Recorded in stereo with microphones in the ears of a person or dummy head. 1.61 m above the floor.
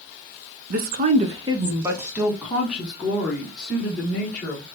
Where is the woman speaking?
60° right (ahead or behind), 0.7 m; by 4.6 s 5° left (ahead or behind), 2.5 m.